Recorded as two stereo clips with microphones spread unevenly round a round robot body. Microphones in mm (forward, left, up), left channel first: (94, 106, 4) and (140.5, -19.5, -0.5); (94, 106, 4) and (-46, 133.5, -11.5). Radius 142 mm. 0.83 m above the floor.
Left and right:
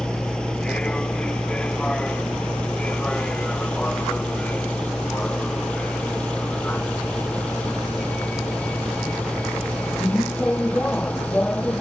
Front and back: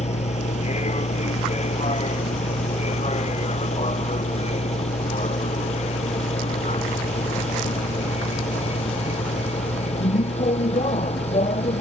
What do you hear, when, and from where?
0.0 s a vehicle: 25° left; by 11.8 s 30° left